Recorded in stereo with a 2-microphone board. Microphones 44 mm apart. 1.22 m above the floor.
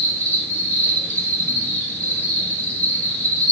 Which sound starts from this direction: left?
An insect, at 0.0 s.